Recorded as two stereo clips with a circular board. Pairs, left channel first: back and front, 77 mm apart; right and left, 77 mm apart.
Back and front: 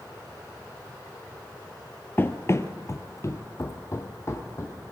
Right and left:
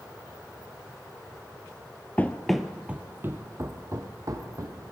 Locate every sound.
2.2 s running footsteps: 140° right, 0.9 m; by 4.9 s 125° left, 2.5 m